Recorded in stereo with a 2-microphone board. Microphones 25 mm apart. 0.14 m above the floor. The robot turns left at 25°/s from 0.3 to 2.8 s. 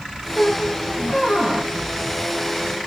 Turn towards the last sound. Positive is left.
turn(degrees=155)